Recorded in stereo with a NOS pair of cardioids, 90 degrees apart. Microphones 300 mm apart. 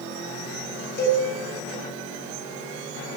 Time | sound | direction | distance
1.0 | a cowbell | 30° left | 9 m